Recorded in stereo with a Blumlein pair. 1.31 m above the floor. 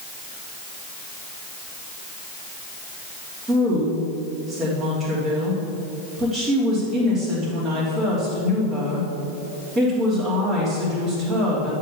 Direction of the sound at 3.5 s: 10° right.